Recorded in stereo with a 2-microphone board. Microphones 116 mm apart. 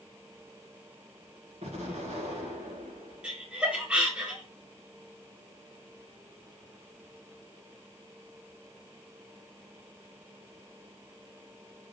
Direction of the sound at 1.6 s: 70° right (ahead or behind).